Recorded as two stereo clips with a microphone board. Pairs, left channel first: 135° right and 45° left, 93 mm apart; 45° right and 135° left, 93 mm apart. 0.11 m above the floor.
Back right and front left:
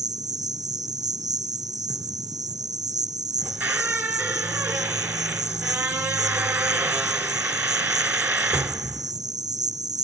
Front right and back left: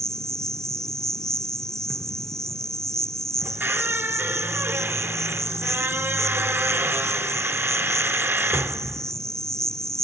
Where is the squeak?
90° left, 0.9 m.